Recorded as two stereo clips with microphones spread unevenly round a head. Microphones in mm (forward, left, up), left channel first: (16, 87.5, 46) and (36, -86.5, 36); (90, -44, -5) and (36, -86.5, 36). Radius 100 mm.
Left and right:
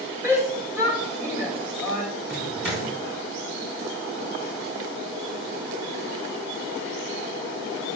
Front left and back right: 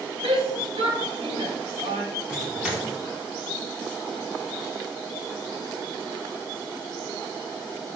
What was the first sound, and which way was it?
A shout, 160° right.